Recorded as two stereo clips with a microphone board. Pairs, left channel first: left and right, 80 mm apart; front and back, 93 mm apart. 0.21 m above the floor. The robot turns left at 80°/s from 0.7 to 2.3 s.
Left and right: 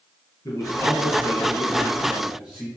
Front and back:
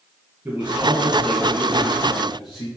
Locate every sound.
0.5 s a man speaking: 115° left, 2 m; by 2.7 s 10° right, 2 m